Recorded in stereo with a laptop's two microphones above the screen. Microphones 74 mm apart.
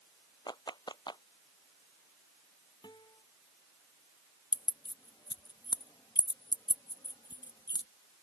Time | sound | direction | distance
0.5 | a clap | 75° left (ahead or behind) | ?
2.8 | a guitar | 75° left (ahead or behind) | ?
4.5 | keys jangling | 70° left (ahead or behind) | ?